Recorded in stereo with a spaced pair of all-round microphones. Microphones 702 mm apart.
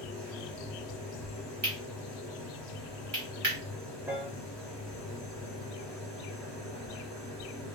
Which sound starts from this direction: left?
A machine running, at 0.0 s.